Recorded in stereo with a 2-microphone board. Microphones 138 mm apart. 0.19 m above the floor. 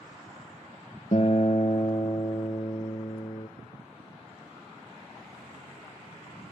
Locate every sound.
1.1 s a guitar: 45° left (ahead or behind), 1.3 m